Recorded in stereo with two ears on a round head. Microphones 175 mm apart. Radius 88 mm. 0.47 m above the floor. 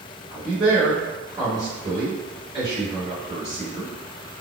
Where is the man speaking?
40° right (ahead or behind), 1.8 m.